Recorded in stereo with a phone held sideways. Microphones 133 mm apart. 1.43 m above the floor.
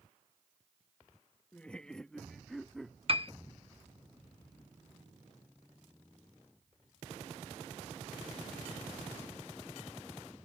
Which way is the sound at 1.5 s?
10° left (ahead or behind).